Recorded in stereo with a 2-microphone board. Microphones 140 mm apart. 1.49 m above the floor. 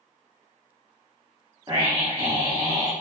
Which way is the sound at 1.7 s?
30° right (ahead or behind).